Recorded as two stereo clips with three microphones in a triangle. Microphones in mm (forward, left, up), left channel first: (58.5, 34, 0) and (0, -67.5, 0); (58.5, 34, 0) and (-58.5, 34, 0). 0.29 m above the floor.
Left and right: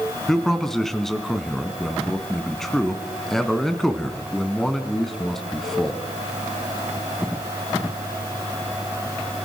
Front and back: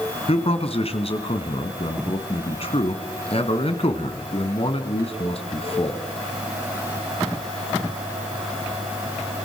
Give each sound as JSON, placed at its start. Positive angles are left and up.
{"t": 0.3, "sound": "a man speaking", "azimuth_deg": -25, "distance_m": 2.5}